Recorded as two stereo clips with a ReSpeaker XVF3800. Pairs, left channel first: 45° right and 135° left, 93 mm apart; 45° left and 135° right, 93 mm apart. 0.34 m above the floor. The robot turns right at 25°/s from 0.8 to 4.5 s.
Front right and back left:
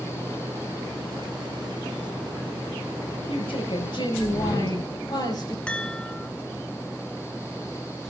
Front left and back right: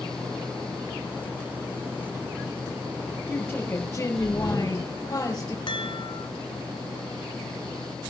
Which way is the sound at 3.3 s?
40° right.